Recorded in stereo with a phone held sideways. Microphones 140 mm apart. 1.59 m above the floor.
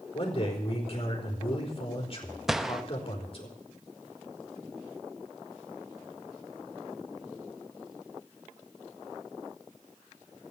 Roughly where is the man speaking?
Left.